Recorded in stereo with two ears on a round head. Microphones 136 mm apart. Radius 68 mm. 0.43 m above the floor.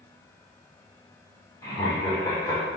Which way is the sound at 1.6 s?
20° left (ahead or behind).